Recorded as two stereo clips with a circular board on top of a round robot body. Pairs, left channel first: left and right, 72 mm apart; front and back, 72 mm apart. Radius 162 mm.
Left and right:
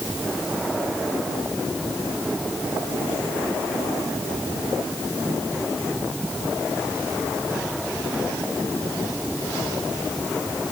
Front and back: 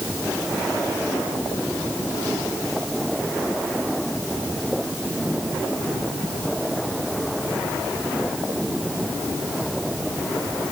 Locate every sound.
Only background noise.